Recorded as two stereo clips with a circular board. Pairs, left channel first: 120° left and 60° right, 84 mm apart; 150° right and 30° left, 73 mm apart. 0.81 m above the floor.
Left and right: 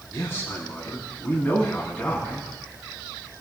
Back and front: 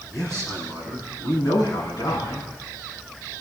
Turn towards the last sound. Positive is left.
turn(degrees=-160)